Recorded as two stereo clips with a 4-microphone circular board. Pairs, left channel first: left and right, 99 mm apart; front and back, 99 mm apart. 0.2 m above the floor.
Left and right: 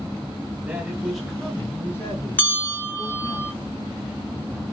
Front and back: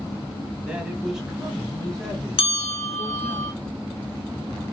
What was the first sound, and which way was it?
A man speaking, 125° right.